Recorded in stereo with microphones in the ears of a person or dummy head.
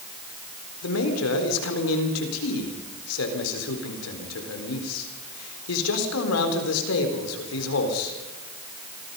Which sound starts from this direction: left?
A man speaking, at 0.8 s.